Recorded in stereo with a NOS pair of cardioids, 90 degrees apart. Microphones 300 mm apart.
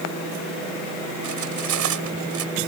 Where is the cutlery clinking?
70° right.